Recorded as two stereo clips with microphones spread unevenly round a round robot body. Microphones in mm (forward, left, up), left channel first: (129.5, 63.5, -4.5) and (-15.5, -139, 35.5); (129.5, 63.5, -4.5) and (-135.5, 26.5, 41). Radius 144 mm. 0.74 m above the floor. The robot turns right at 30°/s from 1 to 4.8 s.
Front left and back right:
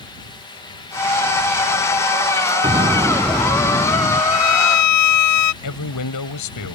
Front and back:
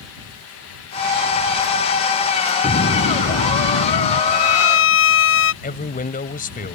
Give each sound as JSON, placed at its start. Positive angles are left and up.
{"t": 2.6, "sound": "an explosion", "azimuth_deg": -55}
{"t": 4.3, "sound": "a violin", "azimuth_deg": 35}
{"t": 5.6, "sound": "a man speaking", "azimuth_deg": 70}